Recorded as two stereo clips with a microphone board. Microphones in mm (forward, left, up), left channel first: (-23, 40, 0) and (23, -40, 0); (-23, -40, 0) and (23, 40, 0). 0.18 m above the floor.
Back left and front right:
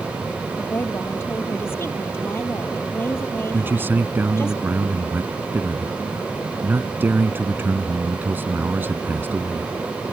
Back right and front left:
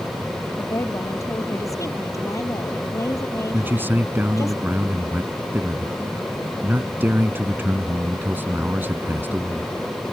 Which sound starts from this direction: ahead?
A man speaking, at 3.5 s.